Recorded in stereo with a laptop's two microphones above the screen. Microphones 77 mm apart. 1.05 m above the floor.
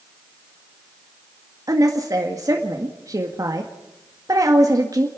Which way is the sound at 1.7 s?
45° right (ahead or behind).